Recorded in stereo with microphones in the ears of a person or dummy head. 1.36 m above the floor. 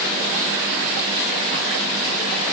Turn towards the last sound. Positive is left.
No sound to turn to.